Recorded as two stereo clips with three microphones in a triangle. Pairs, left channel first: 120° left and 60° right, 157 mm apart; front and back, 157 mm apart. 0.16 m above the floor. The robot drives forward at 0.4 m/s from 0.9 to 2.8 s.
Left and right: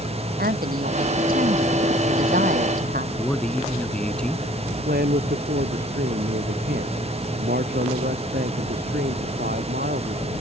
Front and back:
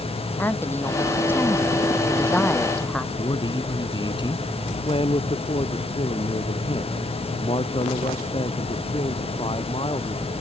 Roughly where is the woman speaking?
Right.